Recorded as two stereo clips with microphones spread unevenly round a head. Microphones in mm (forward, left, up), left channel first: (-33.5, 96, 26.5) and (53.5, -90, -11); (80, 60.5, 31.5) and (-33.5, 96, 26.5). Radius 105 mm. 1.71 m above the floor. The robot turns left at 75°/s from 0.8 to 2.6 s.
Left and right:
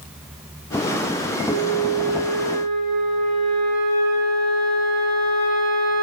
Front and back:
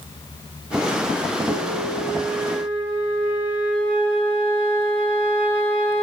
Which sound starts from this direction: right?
A flute, at 1.4 s.